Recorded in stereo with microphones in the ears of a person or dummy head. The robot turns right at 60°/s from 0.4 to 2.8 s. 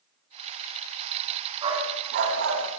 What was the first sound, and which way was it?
A dog barking, 25° right (ahead or behind).